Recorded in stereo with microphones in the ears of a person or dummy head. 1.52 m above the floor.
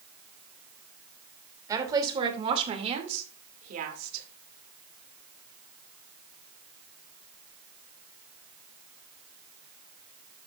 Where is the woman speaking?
15° right (ahead or behind), 3 m; by 4.3 s 55° right (ahead or behind), 2.5 m.